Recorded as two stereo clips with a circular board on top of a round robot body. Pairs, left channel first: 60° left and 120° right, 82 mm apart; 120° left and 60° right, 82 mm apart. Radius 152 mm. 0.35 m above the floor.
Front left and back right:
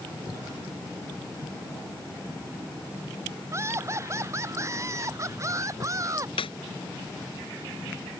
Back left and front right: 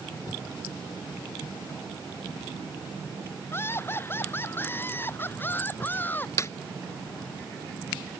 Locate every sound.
3.5 s laughter: straight behind; by 6.3 s 175° right
6.4 s a snare drum: 60° left